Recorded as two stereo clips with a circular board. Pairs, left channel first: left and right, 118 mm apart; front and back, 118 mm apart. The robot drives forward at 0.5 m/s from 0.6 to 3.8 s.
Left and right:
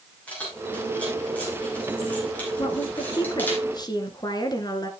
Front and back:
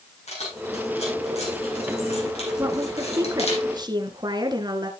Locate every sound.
0.3 s keys jangling: 10° left, 6.5 m; by 3.6 s 15° left, 5 m
2.6 s a woman speaking: 120° left, 1.7 m; by 4.9 s 135° left, 2 m